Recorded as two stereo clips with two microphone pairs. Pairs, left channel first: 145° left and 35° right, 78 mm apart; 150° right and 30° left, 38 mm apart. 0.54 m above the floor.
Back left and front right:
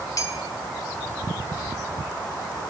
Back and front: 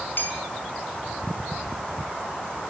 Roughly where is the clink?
Behind.